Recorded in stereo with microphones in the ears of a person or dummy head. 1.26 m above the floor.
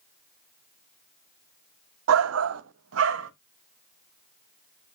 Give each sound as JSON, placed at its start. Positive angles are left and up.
{"t": 2.1, "sound": "a shout", "side_deg": -90, "distance_m": 0.5}